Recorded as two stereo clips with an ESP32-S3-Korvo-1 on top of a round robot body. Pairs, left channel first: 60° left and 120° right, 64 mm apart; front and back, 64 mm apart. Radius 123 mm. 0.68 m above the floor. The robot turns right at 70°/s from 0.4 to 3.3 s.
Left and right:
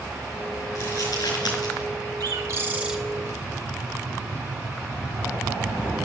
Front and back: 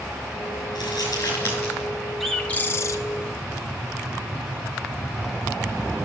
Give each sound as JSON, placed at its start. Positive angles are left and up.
{"t": 0.8, "sound": "crumpling", "azimuth_deg": 15, "distance_m": 5.0}
{"t": 2.2, "sound": "a bird", "azimuth_deg": -90, "distance_m": 0.6}